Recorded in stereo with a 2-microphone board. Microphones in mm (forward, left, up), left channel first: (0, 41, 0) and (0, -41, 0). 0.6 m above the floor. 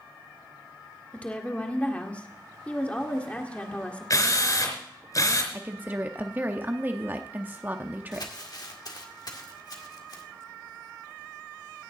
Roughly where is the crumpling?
Left.